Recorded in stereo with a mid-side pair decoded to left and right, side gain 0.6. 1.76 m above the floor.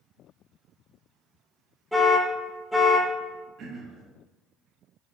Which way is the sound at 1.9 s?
Straight ahead.